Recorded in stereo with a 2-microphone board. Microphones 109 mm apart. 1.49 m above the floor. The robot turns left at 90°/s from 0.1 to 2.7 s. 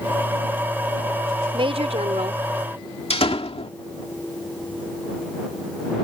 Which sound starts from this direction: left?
A door slam, at 3.1 s.